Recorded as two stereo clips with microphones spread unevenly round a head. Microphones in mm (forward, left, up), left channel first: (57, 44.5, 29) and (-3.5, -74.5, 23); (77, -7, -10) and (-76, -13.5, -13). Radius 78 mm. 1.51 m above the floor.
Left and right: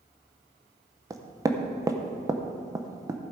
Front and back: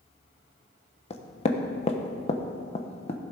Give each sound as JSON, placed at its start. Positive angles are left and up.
{"t": 1.1, "sound": "knocking", "azimuth_deg": -50, "distance_m": 1.0}